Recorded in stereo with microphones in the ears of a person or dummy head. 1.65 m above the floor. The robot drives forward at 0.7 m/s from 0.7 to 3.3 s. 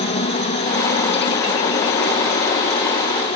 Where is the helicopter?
30° left (ahead or behind); by 3.4 s 35° left (ahead or behind).